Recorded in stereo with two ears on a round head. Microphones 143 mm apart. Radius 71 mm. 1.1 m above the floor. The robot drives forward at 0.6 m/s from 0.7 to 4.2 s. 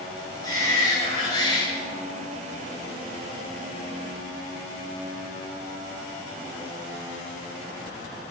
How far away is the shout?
About 3 m.